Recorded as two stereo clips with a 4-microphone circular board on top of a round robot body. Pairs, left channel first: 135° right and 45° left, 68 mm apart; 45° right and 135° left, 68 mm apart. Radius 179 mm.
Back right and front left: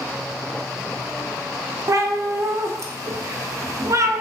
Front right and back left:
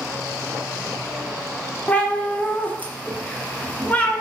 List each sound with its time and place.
1.9 s a cat meowing: 20° left, 0.6 m